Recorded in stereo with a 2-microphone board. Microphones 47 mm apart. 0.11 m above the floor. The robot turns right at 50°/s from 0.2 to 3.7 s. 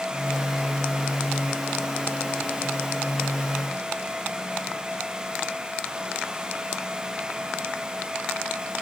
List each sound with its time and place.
Only background noise.